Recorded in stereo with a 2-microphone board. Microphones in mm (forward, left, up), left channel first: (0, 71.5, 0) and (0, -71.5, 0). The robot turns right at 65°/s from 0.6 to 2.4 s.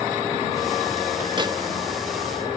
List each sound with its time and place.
1.4 s a microwave: 35° right (ahead or behind); by 1.5 s 30° right (ahead or behind)